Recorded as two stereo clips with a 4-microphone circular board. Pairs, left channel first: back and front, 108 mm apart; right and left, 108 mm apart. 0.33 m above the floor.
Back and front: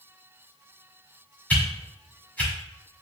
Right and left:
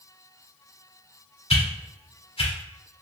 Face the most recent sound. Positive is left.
turn(degrees=-105)